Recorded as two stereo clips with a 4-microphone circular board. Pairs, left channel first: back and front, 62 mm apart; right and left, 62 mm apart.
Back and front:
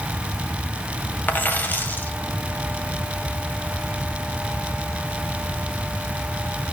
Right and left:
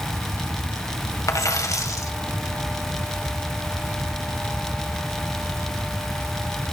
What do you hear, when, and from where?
1.3 s a dropped coin: 120° right, 1.8 m